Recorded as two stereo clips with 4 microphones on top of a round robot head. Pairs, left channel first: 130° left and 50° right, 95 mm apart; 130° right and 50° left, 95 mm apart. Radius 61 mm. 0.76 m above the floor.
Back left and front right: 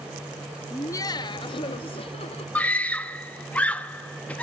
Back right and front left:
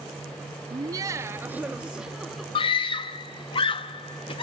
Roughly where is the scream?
Behind right.